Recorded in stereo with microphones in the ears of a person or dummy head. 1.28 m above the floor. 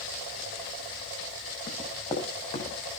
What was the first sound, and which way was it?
Running footsteps, 30° left (ahead or behind).